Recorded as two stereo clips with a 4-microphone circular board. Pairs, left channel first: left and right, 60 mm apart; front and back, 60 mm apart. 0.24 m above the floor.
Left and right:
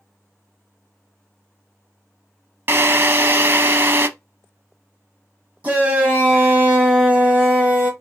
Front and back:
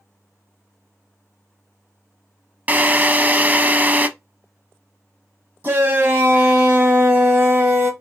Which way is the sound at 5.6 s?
145° right.